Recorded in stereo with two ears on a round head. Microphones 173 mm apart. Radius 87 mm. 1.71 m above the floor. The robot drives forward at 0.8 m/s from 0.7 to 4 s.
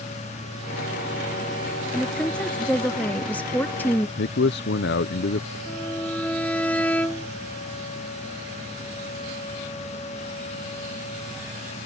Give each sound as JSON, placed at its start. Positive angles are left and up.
{"t": 1.9, "sound": "a woman speaking", "side_deg": 5}
{"t": 4.2, "sound": "a man speaking", "side_deg": 60}
{"t": 5.7, "sound": "a violin", "side_deg": 5}